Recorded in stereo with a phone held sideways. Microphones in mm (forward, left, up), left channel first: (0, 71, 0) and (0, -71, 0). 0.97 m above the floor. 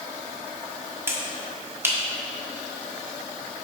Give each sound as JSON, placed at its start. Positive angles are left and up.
{"t": 1.1, "sound": "a finger snap", "side_deg": -20, "distance_m": 1.4}